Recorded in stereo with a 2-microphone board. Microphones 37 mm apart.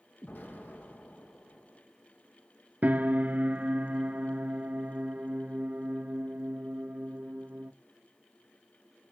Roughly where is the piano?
Right.